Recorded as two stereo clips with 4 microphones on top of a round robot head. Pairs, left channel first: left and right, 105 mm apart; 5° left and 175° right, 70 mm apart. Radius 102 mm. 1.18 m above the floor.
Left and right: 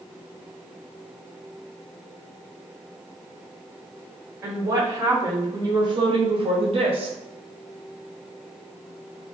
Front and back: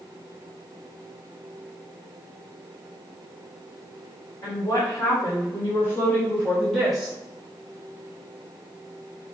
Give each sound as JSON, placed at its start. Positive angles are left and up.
{"t": 4.4, "sound": "a woman speaking", "azimuth_deg": -25, "distance_m": 1.7}